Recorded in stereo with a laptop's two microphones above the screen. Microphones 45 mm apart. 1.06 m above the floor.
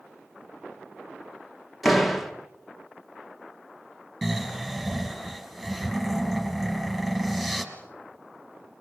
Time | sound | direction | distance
1.8 | a door slam | centre (ahead or behind) | 1.2 m
4.2 | snoring | 5° right (ahead or behind) | 3.5 m